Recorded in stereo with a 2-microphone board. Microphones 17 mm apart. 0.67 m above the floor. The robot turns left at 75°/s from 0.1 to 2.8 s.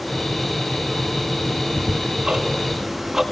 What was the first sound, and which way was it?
Ticking, 60° right (ahead or behind).